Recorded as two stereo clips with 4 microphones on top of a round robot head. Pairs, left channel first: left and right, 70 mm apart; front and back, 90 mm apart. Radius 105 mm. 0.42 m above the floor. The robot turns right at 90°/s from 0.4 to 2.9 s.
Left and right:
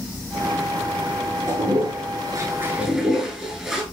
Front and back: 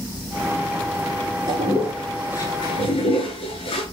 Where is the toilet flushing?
140° right, 5 m; by 3.8 s 10° right, 5 m.